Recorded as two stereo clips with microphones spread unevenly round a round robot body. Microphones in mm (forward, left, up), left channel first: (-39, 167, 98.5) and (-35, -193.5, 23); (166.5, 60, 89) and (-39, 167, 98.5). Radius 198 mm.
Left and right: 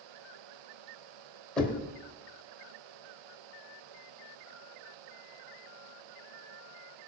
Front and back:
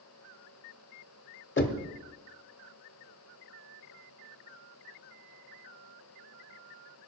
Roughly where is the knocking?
Ahead.